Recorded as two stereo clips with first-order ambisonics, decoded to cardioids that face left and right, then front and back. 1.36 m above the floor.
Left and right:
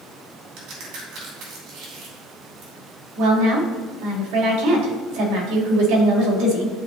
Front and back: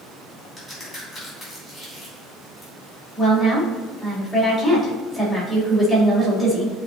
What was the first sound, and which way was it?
A crack, 70° right.